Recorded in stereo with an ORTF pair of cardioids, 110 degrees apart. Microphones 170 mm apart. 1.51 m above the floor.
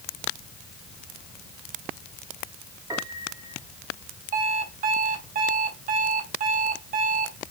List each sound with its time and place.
2.9 s a piano: 20° right, 2.5 m
4.3 s an alarm clock: 55° right, 4 m